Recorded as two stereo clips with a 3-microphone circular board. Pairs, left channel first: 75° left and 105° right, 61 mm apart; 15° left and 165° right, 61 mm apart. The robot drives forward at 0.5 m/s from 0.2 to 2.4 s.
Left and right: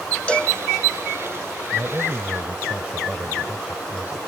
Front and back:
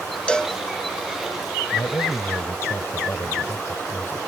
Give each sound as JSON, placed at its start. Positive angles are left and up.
{"t": 0.3, "sound": "a cowbell", "azimuth_deg": 55}
{"t": 1.7, "sound": "a man speaking", "azimuth_deg": -35}